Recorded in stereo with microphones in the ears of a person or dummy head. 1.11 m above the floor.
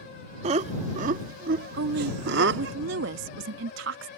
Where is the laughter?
35° right (ahead or behind); by 2.8 s 70° right (ahead or behind).